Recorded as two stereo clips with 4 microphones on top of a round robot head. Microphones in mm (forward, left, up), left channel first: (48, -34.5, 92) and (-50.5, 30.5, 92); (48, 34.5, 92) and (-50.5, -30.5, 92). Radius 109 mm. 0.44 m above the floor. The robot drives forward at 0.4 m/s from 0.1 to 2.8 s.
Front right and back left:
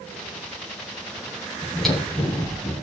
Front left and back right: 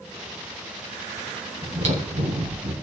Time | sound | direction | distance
1.6 | chewing | 120° right | 3.5 m